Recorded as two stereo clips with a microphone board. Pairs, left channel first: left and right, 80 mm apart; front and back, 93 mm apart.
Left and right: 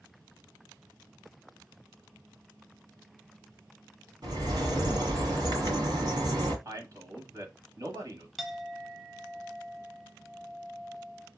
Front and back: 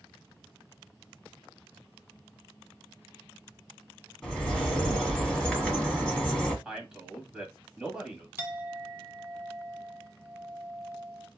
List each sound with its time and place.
4.2 s a bird: 85° right, 1.7 m
6.7 s a man speaking: 100° right, 1.2 m
8.4 s a clink: 175° left, 0.6 m